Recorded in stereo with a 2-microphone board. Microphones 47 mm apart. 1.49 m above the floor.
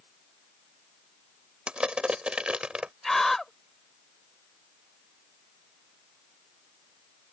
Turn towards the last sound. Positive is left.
turn(degrees=5)  # may be behind; listen again after turning